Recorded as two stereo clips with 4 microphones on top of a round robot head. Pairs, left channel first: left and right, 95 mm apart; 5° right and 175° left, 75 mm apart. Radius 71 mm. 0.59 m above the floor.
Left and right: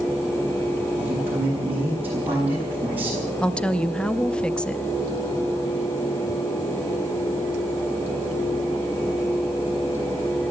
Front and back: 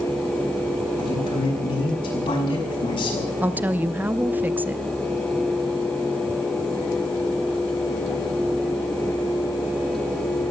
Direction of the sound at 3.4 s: 155° left.